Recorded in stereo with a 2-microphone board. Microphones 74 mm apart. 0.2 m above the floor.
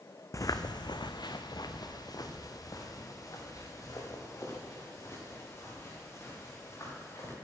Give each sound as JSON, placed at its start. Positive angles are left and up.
{"t": 0.3, "sound": "footsteps", "side_deg": 45, "distance_m": 0.7}